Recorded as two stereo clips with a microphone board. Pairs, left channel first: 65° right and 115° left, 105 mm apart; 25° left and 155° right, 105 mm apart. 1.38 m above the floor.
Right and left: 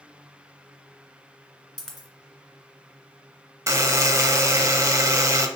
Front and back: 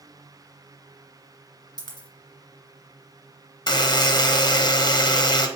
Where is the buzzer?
60° left, 0.6 m.